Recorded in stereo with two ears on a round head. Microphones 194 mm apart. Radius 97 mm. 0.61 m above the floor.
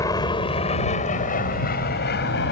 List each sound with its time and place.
0.0 s an aircraft: 15° left (ahead or behind); by 2.5 s 55° left (ahead or behind)